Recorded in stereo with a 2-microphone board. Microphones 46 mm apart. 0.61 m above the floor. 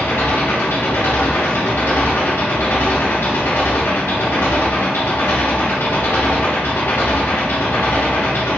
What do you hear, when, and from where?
0.0 s an engine running: 65° left (ahead or behind), 1.0 m